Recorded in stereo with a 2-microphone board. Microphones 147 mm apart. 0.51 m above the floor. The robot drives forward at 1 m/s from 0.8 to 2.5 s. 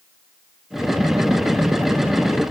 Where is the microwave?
No microwave in this recording.